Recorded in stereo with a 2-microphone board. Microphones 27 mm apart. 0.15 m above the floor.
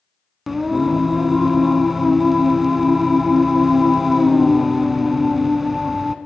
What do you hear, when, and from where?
0.5 s singing: 5° right (ahead or behind), 0.9 m